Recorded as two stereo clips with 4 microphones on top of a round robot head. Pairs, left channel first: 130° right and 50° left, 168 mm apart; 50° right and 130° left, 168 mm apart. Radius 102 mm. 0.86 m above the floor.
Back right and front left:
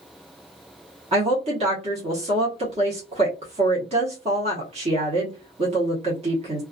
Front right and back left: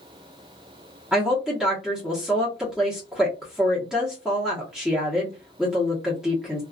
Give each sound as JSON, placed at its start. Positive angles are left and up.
{"t": 1.1, "sound": "a woman speaking", "azimuth_deg": 45, "distance_m": 1.0}